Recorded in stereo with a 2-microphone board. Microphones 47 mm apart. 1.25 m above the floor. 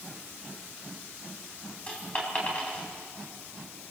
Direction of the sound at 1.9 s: 25° left (ahead or behind).